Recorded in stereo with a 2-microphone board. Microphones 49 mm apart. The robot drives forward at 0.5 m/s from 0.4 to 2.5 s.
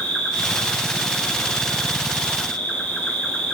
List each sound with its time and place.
0.0 s an insect: 10° left (ahead or behind), 5.5 m; by 3.5 s 15° left (ahead or behind), 4.5 m